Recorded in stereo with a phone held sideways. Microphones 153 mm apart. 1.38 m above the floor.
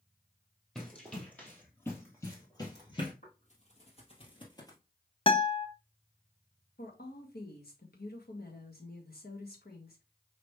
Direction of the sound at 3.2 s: 50° left (ahead or behind).